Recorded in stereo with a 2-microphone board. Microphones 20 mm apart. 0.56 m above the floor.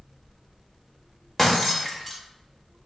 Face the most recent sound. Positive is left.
turn(degrees=20)  # may be behind; listen again after turning